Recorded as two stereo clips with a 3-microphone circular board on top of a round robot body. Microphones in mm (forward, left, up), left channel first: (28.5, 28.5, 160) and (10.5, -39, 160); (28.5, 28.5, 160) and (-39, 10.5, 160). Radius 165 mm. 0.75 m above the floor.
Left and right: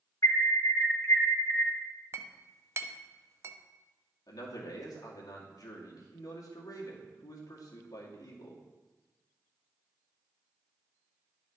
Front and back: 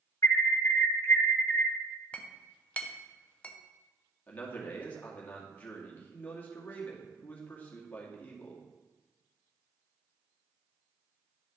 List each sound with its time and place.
0.2 s an alarm: 50° left, 2 m
2.1 s a clink: 55° right, 0.7 m
4.3 s a man speaking: 80° left, 2.5 m